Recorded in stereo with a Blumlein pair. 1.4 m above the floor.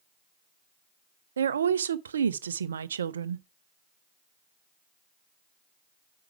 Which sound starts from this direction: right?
A woman speaking, at 1.4 s.